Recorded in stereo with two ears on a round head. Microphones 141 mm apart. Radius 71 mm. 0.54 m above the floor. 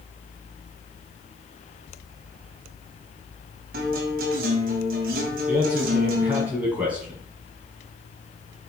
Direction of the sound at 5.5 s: 10° right (ahead or behind).